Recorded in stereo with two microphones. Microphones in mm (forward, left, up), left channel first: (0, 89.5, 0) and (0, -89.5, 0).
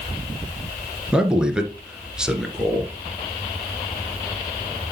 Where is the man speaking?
5° right (ahead or behind), 1.7 m.